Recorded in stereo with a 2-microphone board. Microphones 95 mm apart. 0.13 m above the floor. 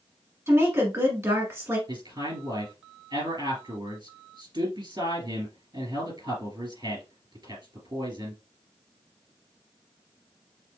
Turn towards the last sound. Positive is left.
turn(degrees=-55)  # may be behind; listen again after turning